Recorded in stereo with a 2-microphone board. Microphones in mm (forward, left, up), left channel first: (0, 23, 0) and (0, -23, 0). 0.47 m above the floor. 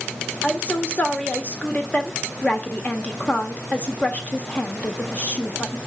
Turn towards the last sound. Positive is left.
turn(degrees=30)  # may be behind; listen again after turning